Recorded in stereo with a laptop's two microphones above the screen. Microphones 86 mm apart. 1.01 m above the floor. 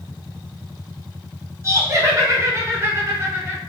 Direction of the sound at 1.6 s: 30° right (ahead or behind).